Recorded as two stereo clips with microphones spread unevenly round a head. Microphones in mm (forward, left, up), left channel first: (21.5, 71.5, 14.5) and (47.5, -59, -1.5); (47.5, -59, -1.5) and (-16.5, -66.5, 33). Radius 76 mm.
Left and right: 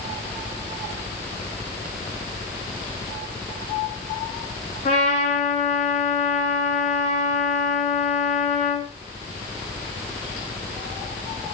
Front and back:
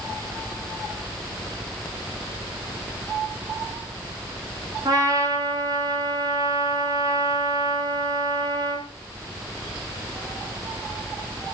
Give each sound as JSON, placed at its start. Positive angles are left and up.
{"t": 4.8, "sound": "a trumpet", "azimuth_deg": 155, "distance_m": 4.5}